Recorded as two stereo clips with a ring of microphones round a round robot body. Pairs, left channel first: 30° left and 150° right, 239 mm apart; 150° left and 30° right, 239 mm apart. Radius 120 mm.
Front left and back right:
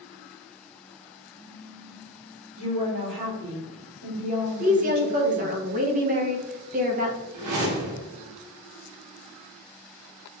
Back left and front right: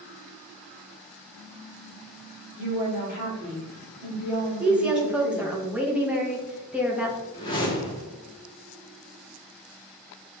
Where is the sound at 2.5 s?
115° right, 2.5 m.